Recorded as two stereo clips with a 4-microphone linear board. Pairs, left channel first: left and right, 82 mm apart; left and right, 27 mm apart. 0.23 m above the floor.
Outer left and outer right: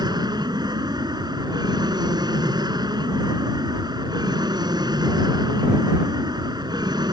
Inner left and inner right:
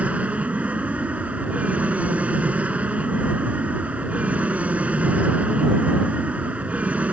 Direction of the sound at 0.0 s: 60° right (ahead or behind).